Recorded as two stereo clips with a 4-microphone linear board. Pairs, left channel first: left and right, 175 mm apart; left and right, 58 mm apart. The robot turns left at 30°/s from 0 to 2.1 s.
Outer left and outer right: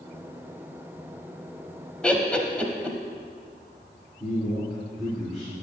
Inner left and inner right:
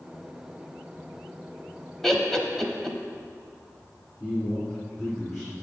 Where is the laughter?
5° left (ahead or behind), 1.0 m.